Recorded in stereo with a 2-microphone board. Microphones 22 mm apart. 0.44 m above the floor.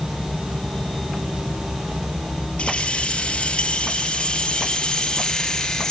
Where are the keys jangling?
55° left (ahead or behind), 5.5 m; by 5.9 s 25° left (ahead or behind), 4.5 m.